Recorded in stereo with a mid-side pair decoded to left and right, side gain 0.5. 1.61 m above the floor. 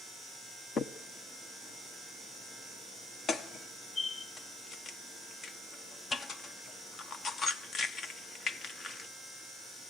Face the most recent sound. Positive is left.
turn(degrees=50)